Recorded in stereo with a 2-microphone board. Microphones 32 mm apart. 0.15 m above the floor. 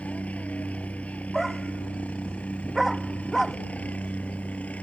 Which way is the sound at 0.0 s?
50° left (ahead or behind).